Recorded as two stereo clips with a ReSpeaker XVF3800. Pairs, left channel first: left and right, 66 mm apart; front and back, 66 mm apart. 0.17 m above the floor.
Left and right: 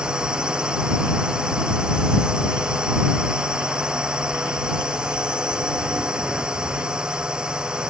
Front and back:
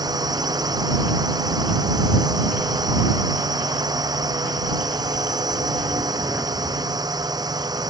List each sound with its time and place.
0.0 s a drone: 170° right